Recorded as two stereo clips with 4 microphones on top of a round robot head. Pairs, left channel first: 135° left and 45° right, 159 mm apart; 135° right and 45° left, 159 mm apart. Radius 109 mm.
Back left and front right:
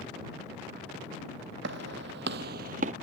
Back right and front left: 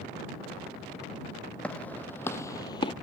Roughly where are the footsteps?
Ahead right.